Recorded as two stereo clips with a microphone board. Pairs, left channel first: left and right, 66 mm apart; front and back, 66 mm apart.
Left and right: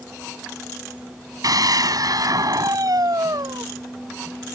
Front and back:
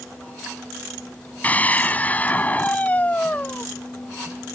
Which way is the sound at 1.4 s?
65° right.